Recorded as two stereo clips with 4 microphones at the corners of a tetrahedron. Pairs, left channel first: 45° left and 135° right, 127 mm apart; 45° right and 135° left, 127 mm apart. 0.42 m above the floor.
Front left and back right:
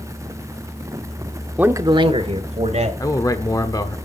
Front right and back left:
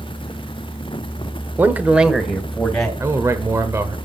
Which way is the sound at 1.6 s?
170° left.